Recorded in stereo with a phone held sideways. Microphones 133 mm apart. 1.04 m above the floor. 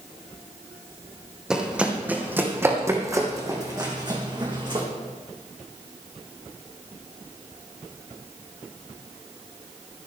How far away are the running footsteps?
About 3 m.